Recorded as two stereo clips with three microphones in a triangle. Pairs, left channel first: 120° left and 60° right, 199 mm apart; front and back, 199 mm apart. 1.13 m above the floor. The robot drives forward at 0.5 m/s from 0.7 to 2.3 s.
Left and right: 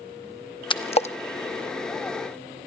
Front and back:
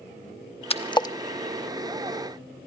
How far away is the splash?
About 0.9 m.